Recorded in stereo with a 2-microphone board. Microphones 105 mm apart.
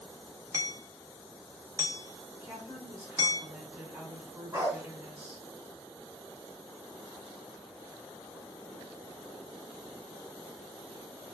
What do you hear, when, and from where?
0.5 s hammering: 30° right (ahead or behind), 0.8 m
2.4 s a woman speaking: 20° right (ahead or behind), 2.0 m
4.5 s a dog barking: 25° right (ahead or behind), 2.5 m